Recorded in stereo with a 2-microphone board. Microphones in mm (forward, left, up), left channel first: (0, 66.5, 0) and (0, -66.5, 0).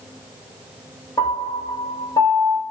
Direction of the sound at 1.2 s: 35° left (ahead or behind).